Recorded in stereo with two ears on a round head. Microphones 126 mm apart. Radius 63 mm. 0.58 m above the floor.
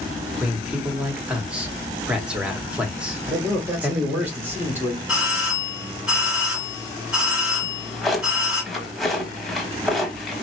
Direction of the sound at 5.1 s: 5° right (ahead or behind).